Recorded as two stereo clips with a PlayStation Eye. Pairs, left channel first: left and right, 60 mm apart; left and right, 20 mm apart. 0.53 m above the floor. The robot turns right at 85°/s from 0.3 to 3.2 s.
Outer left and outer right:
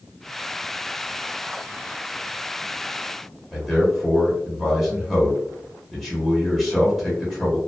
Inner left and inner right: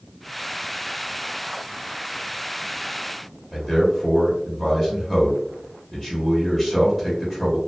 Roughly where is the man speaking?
Centre.